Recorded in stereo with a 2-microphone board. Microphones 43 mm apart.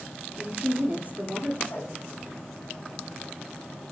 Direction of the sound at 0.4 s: 40° right (ahead or behind).